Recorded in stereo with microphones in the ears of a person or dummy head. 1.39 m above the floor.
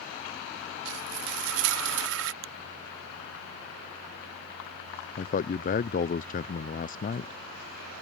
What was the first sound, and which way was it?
Frying, 70° right (ahead or behind).